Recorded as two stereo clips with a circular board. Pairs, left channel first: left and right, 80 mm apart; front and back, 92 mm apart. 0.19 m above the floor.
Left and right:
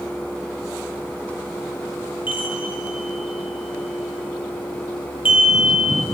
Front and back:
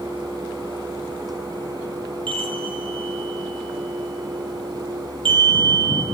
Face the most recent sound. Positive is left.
turn(degrees=-160)